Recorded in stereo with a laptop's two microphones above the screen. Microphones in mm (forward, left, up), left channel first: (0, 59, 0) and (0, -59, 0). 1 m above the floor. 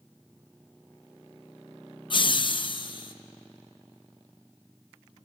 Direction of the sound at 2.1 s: 45° left (ahead or behind).